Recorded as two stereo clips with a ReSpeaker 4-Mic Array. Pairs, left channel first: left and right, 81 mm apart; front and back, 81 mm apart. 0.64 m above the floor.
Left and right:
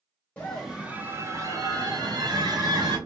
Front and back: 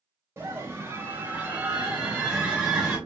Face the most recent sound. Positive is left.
turn(degrees=-100)